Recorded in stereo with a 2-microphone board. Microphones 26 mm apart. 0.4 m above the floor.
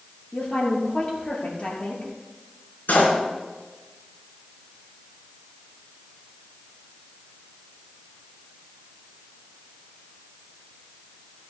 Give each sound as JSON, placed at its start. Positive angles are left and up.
{"t": 0.3, "sound": "a woman speaking", "side_deg": 45, "distance_m": 6.5}
{"t": 2.9, "sound": "a door slam", "side_deg": 80, "distance_m": 4.0}